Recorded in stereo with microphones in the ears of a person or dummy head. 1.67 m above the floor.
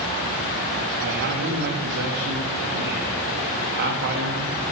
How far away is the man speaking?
About 2.5 m.